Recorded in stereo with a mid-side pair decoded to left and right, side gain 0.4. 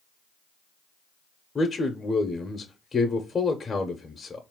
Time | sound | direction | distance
1.6 | a man speaking | 35° left | 0.9 m